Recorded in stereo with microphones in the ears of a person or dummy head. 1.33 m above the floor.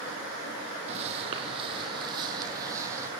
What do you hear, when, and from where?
0.9 s footsteps: 35° right (ahead or behind), 3.5 m; by 3.1 s 15° right (ahead or behind), 3.5 m